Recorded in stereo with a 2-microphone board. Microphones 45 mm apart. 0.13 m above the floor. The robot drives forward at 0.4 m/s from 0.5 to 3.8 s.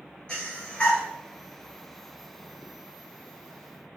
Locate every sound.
0.3 s breathing: 20° left (ahead or behind), 1.3 m; by 1.0 s 25° left (ahead or behind), 1.1 m